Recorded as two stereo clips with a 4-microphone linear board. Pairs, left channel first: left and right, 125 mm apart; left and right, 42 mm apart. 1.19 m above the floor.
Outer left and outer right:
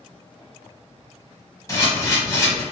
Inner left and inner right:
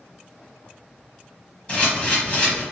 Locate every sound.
1.7 s a camera shutter: 30° left (ahead or behind), 1.1 m